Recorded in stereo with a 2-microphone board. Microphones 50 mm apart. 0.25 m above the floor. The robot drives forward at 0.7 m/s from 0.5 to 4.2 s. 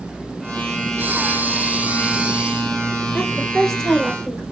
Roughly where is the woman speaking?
Centre.